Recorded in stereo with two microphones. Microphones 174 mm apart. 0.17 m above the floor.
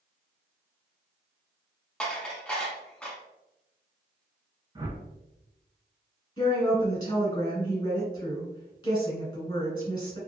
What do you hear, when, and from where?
2.0 s dishes clattering: 5° left (ahead or behind), 0.8 m
4.8 s a whoosh: 25° right (ahead or behind), 0.6 m
6.4 s a woman speaking: 25° left (ahead or behind), 1.4 m